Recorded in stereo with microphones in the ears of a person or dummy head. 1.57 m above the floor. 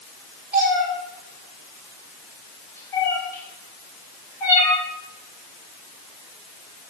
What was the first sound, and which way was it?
A cat meowing, 5° right (ahead or behind).